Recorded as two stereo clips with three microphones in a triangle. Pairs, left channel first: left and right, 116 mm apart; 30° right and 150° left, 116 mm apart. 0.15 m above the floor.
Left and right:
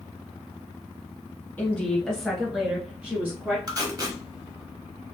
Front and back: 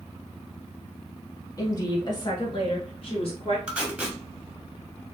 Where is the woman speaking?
20° left, 1.5 m; by 3.6 s 20° right, 2 m.